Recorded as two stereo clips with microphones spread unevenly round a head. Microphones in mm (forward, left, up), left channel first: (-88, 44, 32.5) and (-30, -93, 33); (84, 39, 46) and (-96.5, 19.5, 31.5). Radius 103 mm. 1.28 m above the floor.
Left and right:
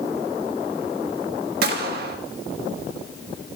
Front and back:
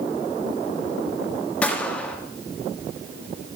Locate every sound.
1.6 s a gunshot: 75° right, 1.3 m